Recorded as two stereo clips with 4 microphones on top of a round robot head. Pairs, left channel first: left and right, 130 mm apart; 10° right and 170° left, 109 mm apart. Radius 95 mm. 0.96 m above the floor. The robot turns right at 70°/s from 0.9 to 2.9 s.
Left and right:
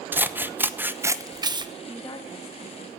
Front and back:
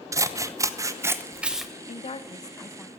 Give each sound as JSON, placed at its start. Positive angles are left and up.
{"t": 0.1, "sound": "scissors", "azimuth_deg": -155, "distance_m": 1.0}
{"t": 1.9, "sound": "a woman speaking", "azimuth_deg": 10, "distance_m": 1.4}